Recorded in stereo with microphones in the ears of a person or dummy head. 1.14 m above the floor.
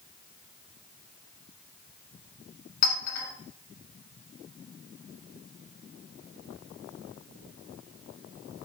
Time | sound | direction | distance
2.8 | a clink | 55° left (ahead or behind) | 3.5 m